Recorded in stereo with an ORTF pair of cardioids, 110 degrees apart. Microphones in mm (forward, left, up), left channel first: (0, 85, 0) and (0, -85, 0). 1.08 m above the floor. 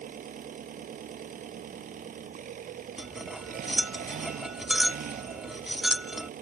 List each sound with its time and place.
0.0 s an engine running: 55° right
3.0 s cutlery clinking: straight ahead